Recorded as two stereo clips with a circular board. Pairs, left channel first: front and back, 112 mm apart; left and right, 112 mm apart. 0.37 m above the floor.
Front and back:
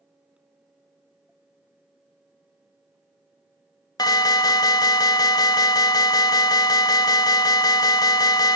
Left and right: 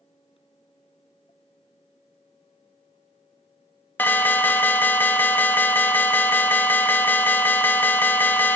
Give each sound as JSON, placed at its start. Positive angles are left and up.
{"t": 4.0, "sound": "an alarm", "azimuth_deg": 25, "distance_m": 1.2}